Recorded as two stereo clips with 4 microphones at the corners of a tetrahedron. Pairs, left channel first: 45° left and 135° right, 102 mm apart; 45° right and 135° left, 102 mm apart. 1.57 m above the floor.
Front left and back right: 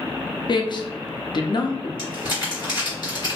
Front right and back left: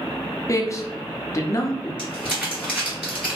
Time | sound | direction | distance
0.5 | a man speaking | 10° left | 0.5 m
2.0 | crumpling | 65° left | 1.8 m